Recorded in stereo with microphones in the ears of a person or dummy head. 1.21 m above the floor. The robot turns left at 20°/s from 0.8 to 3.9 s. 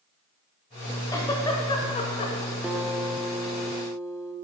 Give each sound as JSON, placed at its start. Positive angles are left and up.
{"t": 1.1, "sound": "a giggle", "side_deg": 15, "distance_m": 1.1}
{"t": 2.6, "sound": "a guitar", "side_deg": -5, "distance_m": 0.7}